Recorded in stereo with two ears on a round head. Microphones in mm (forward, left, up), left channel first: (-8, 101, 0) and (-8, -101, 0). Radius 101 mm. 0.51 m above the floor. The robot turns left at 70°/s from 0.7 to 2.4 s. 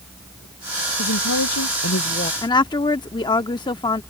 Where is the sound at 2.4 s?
20° left (ahead or behind).